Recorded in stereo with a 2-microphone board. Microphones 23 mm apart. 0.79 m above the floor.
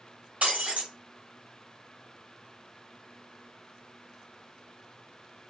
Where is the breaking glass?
75° right (ahead or behind), 1.3 m.